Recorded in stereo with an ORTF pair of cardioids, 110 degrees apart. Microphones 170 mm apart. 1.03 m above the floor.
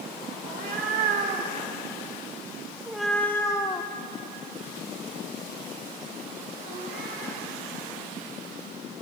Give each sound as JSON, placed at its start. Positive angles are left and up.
{"t": 0.5, "sound": "a cat meowing", "azimuth_deg": -60, "distance_m": 1.8}